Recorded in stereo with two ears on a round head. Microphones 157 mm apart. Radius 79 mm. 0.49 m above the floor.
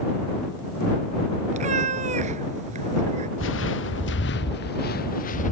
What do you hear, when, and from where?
1.5 s a cat meowing: 40° right (ahead or behind)
3.4 s footsteps: 80° left; by 5.5 s 45° left (ahead or behind)